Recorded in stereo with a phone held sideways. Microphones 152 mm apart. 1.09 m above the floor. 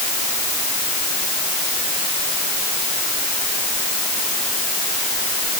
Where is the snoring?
No snoring in this recording.